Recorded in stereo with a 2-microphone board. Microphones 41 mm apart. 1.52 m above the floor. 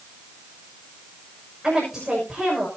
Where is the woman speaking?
10° right (ahead or behind), 6 m.